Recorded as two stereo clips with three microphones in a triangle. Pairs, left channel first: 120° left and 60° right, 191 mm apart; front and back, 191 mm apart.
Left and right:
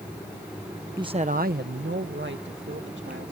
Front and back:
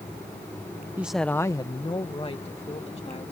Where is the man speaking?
110° right; by 3.3 s 55° right.